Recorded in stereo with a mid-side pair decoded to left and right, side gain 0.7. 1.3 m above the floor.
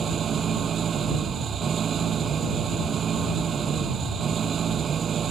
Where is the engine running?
35° right.